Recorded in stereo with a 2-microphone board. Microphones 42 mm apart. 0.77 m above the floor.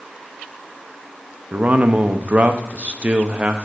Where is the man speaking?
35° right (ahead or behind), 0.5 m.